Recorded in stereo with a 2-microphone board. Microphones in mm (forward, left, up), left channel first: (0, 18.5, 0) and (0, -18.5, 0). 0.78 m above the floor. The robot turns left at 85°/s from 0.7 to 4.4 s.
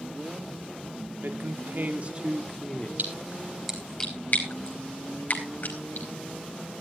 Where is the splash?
60° right (ahead or behind), 4 m; by 6.1 s 55° left (ahead or behind), 4 m.